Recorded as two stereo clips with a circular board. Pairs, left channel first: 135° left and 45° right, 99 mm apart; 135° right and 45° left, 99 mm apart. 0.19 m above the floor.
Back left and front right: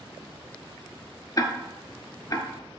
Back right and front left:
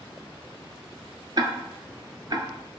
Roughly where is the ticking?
Left.